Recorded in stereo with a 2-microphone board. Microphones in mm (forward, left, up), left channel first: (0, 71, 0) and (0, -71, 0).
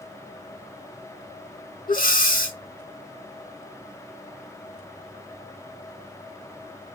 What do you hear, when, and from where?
1.9 s breathing: 85° left, 0.9 m